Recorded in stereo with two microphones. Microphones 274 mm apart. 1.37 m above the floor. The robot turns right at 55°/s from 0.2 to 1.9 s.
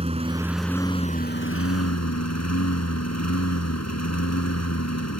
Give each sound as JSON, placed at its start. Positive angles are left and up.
{"t": 0.0, "sound": "a lawn mower", "azimuth_deg": -20}